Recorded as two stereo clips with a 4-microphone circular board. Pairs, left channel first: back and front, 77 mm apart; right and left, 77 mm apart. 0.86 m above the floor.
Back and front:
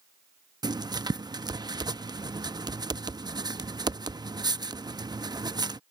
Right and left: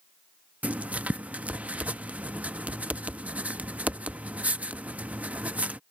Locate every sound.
0.6 s writing: 20° left